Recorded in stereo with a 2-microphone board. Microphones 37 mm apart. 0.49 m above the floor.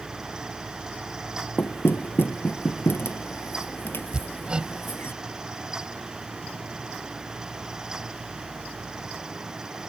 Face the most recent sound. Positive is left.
turn(degrees=-25)  # may be behind; listen again after turning